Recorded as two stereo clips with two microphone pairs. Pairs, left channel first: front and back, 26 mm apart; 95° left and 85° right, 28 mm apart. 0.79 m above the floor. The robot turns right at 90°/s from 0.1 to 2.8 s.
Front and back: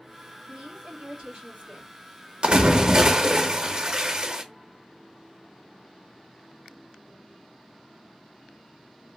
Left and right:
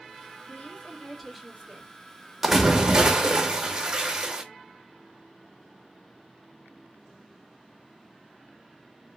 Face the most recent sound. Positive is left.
turn(degrees=-130)